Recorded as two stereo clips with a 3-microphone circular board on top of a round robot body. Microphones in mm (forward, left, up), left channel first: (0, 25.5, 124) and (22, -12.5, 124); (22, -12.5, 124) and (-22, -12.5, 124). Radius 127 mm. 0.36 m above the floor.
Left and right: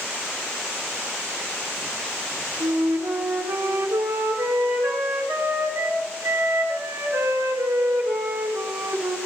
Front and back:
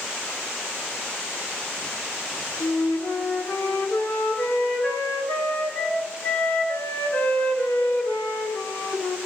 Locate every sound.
2.6 s a flute: 45° right, 3.5 m